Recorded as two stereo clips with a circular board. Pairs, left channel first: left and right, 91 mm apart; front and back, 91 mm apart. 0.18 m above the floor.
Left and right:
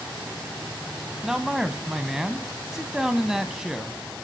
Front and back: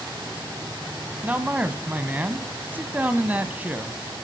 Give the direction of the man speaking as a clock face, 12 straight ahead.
5 o'clock.